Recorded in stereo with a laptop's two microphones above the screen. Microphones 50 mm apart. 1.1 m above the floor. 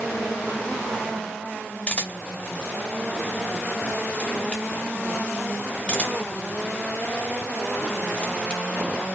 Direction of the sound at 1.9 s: 20° left (ahead or behind).